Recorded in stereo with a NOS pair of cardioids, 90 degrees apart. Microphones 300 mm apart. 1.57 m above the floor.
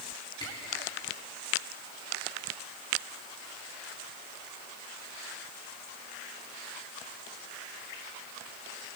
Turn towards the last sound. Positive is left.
turn(degrees=15)